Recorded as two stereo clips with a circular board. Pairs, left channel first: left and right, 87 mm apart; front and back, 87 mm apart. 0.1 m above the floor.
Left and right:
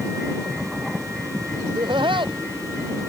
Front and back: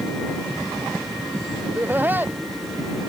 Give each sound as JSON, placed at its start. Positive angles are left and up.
{"t": 1.6, "sound": "laughter", "azimuth_deg": -110}